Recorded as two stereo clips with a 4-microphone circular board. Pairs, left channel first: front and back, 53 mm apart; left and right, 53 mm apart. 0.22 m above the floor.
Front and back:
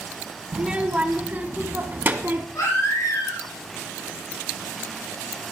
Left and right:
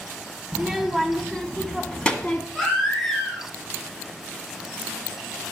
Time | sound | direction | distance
0.5 | a child speaking | 165° right | 1.2 m
2.5 | a baby crying | 15° left | 7.5 m